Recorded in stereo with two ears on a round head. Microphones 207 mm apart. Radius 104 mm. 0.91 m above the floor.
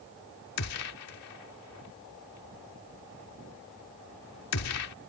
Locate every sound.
0.6 s a gunshot: 75° left (ahead or behind)